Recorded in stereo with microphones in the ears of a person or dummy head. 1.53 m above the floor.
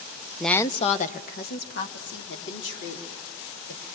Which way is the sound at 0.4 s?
Centre (ahead or behind).